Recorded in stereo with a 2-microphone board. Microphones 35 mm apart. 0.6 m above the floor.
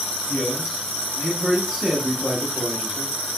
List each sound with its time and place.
0.3 s a man speaking: 35° left (ahead or behind), 0.9 m; by 3.1 s 45° right (ahead or behind), 1.3 m